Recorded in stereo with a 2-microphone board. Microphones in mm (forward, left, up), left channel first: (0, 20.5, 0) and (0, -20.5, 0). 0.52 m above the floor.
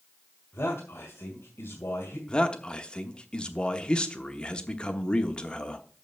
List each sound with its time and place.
0.5 s a man speaking: 60° left (ahead or behind), 2 m
2.3 s a man speaking: 20° left (ahead or behind), 1.0 m